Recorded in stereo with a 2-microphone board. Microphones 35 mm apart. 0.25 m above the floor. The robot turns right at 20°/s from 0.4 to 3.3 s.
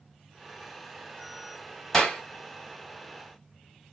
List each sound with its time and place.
1.9 s a clap: 15° left (ahead or behind), 1.6 m; by 2.2 s 10° left (ahead or behind), 1.6 m